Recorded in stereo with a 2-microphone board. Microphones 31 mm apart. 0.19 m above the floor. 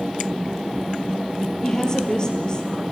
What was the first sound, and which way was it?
A woman speaking, 20° left (ahead or behind).